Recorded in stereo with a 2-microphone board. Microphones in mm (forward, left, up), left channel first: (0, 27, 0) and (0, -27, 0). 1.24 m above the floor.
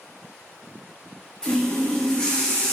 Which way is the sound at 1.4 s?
15° left (ahead or behind).